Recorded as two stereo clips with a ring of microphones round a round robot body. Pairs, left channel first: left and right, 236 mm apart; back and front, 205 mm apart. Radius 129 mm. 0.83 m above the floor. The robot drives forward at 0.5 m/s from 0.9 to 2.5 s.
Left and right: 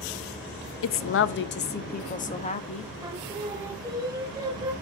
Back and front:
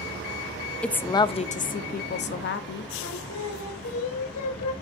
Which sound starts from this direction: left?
A woman speaking, at 0.8 s.